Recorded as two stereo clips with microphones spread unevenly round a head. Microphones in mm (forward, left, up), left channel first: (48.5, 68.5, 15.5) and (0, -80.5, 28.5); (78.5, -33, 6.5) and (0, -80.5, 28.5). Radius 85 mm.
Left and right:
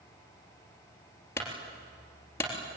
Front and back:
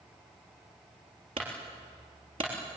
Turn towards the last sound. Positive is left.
turn(degrees=145)